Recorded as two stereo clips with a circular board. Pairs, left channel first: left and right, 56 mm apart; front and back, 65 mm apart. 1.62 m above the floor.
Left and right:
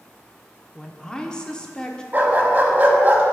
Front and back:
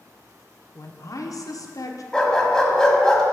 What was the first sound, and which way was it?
A woman speaking, 15° left.